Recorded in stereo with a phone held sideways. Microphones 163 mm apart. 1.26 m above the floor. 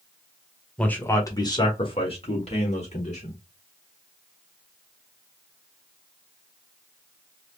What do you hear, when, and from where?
0.8 s a man speaking: 5° left (ahead or behind), 0.8 m; by 3.4 s 45° left (ahead or behind), 1.9 m